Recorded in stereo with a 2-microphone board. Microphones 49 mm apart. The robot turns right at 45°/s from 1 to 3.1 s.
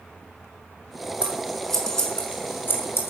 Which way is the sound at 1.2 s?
25° right (ahead or behind).